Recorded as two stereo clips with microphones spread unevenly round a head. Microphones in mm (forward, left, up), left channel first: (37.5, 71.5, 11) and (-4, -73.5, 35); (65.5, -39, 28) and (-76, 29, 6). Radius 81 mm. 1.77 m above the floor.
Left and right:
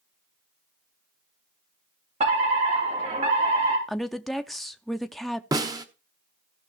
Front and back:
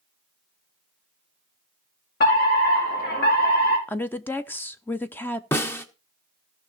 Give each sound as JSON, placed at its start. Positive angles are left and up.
{"t": 2.2, "sound": "a fire alarm", "azimuth_deg": -55, "distance_m": 4.0}
{"t": 3.9, "sound": "a woman speaking", "azimuth_deg": -40, "distance_m": 0.5}
{"t": 5.5, "sound": "a snare drum", "azimuth_deg": -80, "distance_m": 1.0}